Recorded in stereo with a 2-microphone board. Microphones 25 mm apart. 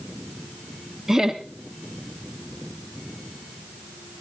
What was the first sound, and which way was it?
Laughter, 20° right (ahead or behind).